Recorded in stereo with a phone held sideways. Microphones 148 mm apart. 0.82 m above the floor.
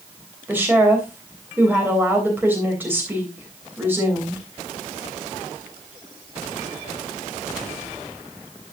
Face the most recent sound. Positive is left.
turn(degrees=-15)  # may be behind; listen again after turning